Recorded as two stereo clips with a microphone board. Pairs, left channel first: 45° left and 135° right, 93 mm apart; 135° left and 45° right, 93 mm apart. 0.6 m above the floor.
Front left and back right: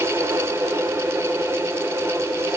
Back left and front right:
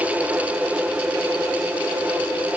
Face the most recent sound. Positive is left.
No sound to turn to.